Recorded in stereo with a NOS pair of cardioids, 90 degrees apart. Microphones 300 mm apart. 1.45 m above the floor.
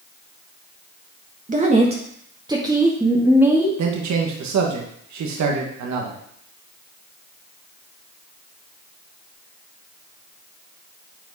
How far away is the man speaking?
About 1.7 m.